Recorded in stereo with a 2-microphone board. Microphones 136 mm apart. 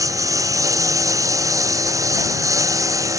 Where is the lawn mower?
25° right (ahead or behind).